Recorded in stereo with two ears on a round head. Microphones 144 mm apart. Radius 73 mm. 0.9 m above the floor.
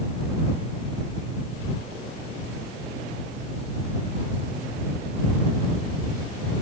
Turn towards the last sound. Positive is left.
No sound to turn to.